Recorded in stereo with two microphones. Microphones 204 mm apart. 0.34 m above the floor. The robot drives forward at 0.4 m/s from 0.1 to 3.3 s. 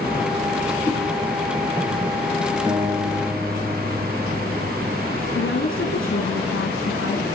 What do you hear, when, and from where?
0.8 s a whoosh: 10° left (ahead or behind), 6 m
2.7 s a guitar: 20° right (ahead or behind), 5 m
5.3 s a woman speaking: 70° left (ahead or behind), 3.5 m